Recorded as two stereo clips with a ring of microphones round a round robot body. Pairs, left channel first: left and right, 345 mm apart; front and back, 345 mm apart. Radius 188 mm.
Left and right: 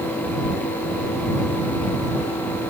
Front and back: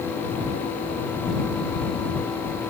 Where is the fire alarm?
I don't hear a fire alarm.